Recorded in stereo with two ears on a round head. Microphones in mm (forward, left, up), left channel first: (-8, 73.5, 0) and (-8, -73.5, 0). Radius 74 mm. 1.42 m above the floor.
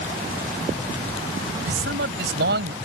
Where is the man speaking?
75° right (ahead or behind); by 2.7 s 70° right (ahead or behind).